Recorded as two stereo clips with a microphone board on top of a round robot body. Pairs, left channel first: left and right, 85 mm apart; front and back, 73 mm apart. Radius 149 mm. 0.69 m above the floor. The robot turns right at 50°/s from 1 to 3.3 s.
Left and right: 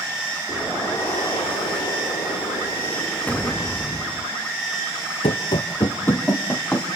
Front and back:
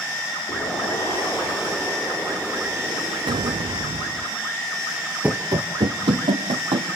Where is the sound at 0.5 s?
40° left, 9.5 m; by 4.3 s 155° left, 9.5 m.